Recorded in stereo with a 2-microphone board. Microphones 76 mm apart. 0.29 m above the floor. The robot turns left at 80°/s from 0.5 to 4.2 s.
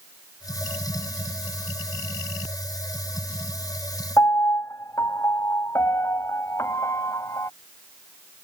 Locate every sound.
4.2 s a piano: 45° left (ahead or behind)